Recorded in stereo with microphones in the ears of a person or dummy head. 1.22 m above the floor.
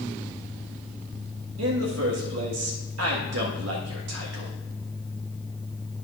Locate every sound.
1.6 s a man speaking: 85° right, 1.6 m